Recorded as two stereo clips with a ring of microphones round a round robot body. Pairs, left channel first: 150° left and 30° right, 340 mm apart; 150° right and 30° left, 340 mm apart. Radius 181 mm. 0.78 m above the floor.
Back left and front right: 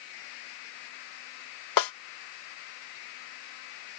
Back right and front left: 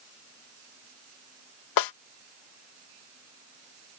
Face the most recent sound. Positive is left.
turn(degrees=180)